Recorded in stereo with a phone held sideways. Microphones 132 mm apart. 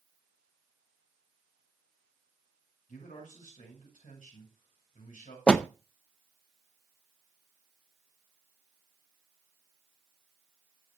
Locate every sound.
2.9 s a man speaking: 85° left, 7.5 m
5.5 s a door slam: 5° left (ahead or behind), 0.5 m